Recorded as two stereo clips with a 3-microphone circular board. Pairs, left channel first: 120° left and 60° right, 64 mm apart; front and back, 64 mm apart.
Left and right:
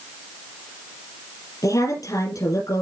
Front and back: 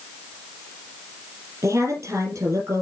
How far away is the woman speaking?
About 5 m.